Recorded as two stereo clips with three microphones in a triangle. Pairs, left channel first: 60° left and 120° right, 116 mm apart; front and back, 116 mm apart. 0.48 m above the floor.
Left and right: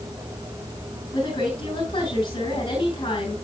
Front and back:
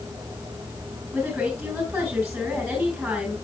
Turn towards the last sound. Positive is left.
turn(degrees=95)